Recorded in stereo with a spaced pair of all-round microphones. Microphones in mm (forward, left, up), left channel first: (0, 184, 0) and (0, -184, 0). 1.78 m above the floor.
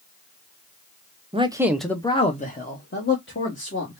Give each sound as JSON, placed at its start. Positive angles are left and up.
{"t": 1.3, "sound": "a man speaking", "side_deg": -15, "distance_m": 0.7}